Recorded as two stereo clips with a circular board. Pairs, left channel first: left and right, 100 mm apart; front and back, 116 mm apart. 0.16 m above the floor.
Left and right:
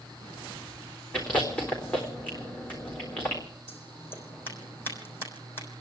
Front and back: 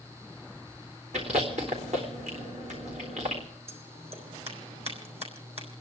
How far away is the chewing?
About 3.5 m.